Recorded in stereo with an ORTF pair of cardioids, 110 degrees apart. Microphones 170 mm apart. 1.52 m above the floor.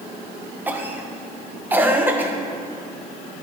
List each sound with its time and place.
0.7 s a cough: 10° right, 1.4 m